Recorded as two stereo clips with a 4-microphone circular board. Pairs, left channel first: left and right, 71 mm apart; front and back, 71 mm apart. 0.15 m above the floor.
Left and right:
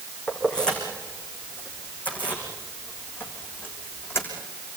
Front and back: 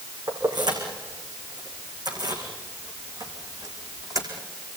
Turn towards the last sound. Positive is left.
turn(degrees=145)